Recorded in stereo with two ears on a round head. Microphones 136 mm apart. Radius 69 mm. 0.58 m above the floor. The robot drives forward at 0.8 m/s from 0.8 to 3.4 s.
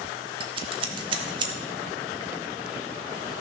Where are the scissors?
35° right (ahead or behind), 1.3 m; by 1.5 s 30° right (ahead or behind), 1.5 m.